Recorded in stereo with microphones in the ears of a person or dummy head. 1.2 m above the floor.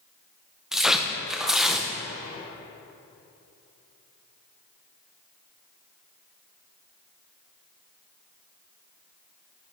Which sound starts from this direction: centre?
Tearing paper, at 0.7 s.